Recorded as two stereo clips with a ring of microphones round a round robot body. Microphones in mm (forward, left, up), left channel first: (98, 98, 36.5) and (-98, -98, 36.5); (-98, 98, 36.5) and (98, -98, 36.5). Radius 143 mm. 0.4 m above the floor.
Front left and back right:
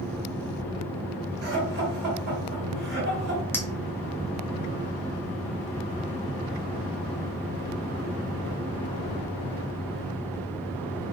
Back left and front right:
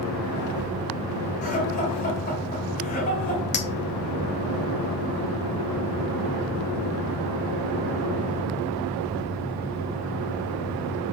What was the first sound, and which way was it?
Laughter, 170° right.